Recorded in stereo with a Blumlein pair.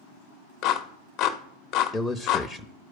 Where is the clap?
40° left, 0.7 m.